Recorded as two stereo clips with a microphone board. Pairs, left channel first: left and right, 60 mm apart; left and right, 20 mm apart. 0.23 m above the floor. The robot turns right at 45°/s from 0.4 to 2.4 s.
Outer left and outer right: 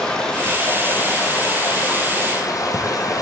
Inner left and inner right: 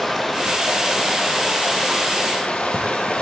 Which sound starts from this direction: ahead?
Running water, at 0.0 s.